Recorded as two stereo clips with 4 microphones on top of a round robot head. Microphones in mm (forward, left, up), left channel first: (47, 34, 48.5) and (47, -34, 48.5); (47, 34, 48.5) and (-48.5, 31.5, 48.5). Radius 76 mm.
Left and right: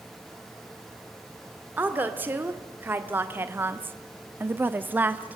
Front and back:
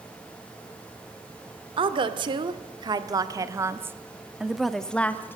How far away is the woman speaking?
About 1.9 m.